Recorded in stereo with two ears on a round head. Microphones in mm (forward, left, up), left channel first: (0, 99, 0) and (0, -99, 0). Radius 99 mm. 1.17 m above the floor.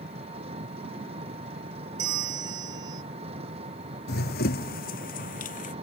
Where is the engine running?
30° right (ahead or behind).